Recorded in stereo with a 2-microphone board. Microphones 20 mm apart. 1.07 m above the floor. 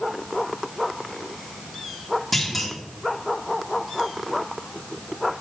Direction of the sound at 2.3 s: 5° left (ahead or behind).